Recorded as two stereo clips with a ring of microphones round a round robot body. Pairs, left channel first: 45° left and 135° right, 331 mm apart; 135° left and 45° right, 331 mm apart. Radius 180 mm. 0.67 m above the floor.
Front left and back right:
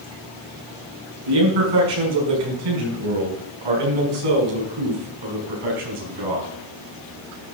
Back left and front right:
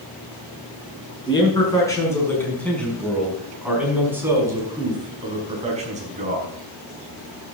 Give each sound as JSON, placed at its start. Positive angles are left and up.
{"t": 1.3, "sound": "a man speaking", "azimuth_deg": -150, "distance_m": 6.0}